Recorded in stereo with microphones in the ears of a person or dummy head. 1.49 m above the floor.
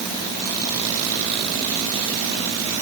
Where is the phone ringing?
I don't hear a phone ringing.